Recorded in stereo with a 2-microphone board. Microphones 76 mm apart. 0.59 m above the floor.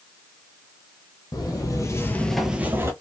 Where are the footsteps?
60° left (ahead or behind), 1.1 m; by 2.9 s 35° right (ahead or behind), 0.9 m.